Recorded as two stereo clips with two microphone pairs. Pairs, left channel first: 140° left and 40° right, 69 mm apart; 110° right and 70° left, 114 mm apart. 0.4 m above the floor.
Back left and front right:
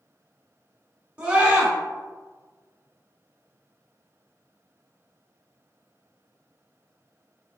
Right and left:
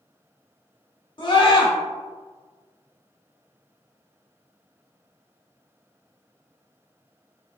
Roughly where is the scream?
Right.